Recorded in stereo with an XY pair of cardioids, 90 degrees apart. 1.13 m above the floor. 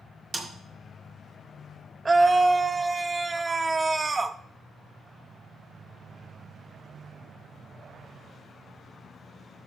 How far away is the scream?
About 0.7 m.